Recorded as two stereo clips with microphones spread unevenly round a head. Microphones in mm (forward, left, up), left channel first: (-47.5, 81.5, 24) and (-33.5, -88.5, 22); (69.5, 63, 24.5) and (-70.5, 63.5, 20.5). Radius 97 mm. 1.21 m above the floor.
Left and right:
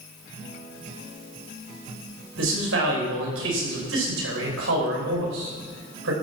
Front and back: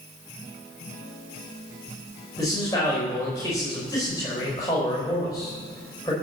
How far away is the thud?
I don't hear a thud.